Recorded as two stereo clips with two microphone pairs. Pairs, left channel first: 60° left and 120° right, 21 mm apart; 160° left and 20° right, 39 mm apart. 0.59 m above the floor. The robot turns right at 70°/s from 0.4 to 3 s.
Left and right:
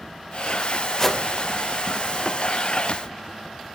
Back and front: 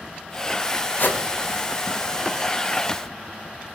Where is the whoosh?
130° left, 1.7 m; by 1.2 s 145° left, 1.7 m.